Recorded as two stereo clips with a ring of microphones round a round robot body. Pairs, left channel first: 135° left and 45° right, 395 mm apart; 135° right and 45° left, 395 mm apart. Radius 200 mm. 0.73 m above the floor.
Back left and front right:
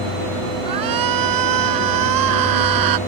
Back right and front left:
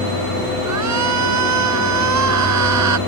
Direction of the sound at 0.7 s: 5° right.